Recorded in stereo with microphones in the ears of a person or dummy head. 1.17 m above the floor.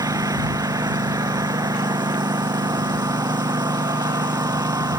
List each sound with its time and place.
0.0 s a lawn mower: 20° right (ahead or behind)